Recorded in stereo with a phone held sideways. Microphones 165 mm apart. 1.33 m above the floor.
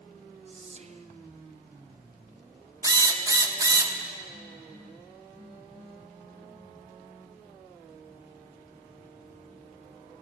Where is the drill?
20° right (ahead or behind), 0.6 m.